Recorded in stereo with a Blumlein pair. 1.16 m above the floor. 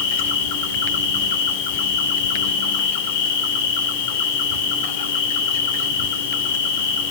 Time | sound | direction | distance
0.0 | an insect | 55° left | 3 m